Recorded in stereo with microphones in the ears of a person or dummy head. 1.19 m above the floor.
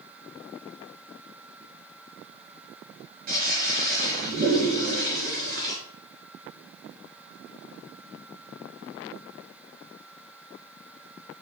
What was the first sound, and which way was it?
A toilet flushing, 45° right (ahead or behind).